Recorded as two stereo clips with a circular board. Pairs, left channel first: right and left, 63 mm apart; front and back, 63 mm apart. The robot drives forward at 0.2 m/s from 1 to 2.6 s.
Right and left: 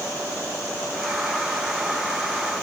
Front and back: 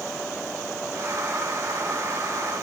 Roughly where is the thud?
No thud in this recording.